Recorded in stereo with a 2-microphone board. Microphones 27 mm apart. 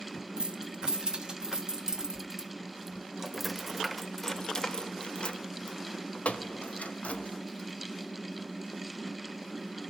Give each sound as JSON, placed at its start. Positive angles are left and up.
{"t": 0.4, "sound": "keys jangling", "side_deg": -35, "distance_m": 2.5}